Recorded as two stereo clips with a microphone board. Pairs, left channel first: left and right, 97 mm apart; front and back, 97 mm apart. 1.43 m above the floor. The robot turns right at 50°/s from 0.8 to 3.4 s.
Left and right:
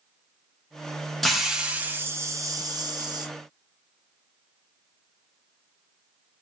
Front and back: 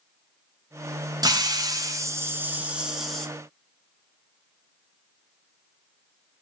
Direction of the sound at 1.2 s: 175° left.